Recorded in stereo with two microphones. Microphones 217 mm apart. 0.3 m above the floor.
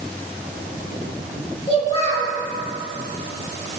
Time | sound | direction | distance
1.7 | a child speaking | 25° left (ahead or behind) | 4.5 m